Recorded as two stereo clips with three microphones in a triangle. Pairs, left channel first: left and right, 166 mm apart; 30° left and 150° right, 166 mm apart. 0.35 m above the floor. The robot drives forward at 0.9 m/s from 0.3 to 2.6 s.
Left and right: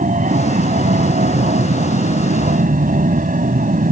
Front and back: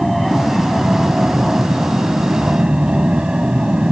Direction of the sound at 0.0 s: 60° right.